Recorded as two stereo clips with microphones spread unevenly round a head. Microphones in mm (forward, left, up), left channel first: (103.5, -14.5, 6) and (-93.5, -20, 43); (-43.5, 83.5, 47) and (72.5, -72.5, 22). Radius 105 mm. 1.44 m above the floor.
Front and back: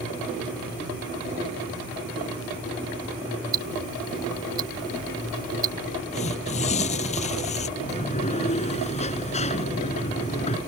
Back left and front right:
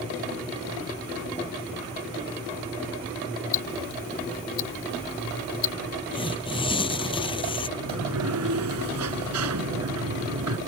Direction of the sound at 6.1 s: 60° left.